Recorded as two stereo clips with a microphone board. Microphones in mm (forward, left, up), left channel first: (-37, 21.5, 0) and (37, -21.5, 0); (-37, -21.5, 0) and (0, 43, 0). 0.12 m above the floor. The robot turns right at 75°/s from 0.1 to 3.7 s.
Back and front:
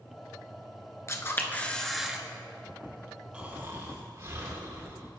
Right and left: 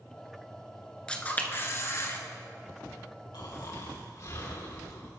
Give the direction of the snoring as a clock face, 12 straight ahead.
4 o'clock.